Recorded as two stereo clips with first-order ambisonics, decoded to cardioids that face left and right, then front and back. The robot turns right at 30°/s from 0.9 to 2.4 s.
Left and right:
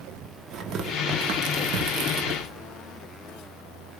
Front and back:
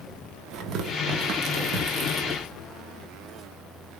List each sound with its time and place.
0.5 s tearing paper: 140° right, 0.8 m; by 2.4 s 95° right, 0.8 m